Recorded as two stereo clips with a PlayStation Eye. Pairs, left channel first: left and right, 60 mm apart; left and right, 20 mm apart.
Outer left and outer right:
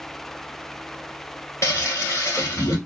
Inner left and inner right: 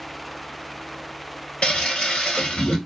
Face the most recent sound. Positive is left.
turn(degrees=55)  # may be behind; listen again after turning